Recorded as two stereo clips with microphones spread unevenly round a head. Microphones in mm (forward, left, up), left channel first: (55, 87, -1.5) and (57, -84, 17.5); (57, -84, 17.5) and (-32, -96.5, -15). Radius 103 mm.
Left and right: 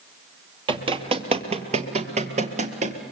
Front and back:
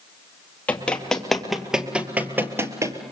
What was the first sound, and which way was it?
Running footsteps, 45° right.